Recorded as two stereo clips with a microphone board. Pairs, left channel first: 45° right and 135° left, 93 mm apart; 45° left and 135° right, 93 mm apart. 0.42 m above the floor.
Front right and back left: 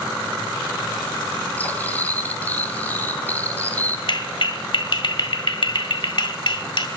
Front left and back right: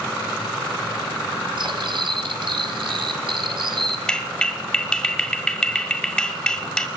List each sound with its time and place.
1.6 s cutlery clinking: 115° right, 1.7 m
4.1 s a clap: 35° right, 1.8 m